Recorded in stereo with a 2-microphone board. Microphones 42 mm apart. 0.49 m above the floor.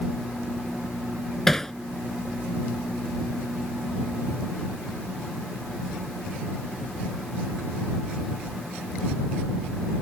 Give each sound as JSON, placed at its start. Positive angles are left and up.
{"t": 1.5, "sound": "hammering", "side_deg": 10}